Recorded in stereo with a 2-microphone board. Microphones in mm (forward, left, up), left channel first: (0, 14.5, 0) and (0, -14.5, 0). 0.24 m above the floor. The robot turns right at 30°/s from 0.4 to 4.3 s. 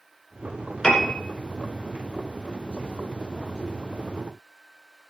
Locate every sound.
0.8 s a piano: 25° left (ahead or behind), 2.5 m; by 1.1 s 35° left (ahead or behind), 2.5 m